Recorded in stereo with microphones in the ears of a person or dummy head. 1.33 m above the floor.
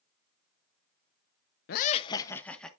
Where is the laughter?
55° left (ahead or behind), 0.5 m; by 2.7 s 5° left (ahead or behind), 1.3 m.